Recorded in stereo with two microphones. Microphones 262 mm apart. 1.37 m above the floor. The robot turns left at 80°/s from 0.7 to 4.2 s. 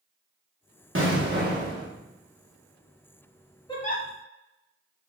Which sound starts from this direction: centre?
A giggle, at 3.7 s.